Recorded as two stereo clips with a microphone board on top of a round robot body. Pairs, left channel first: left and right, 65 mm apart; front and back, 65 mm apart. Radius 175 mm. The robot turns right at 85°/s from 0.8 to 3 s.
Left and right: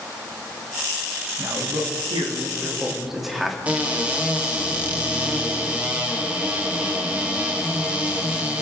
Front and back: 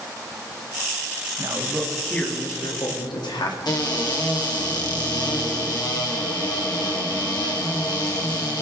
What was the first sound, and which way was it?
A man speaking, 140° right.